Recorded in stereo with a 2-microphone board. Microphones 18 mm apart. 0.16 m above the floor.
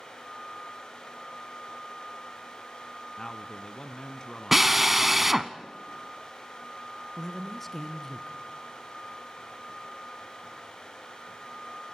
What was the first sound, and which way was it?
A man speaking, 35° left (ahead or behind).